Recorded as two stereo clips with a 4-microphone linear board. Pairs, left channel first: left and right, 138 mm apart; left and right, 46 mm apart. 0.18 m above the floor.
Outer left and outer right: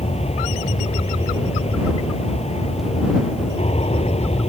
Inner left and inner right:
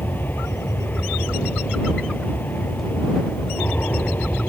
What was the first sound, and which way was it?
An aircraft, 50° left (ahead or behind).